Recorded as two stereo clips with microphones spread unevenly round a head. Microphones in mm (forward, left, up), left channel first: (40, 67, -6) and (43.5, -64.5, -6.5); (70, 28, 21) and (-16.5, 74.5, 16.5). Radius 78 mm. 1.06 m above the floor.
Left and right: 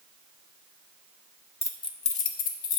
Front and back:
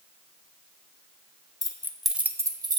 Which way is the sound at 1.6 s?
25° left.